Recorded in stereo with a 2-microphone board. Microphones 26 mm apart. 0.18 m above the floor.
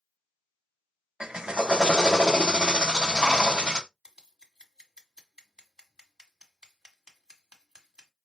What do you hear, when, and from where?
1.2 s a drill: 35° right (ahead or behind), 0.5 m
4.0 s scissors: 30° right (ahead or behind), 1.5 m